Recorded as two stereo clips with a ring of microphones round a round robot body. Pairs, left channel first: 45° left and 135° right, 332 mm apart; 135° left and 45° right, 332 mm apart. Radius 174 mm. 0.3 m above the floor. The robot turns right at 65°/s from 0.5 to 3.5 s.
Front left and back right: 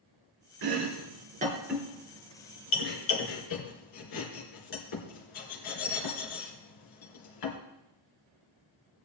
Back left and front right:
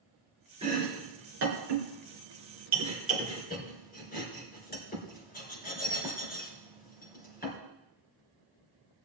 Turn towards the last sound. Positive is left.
turn(degrees=70)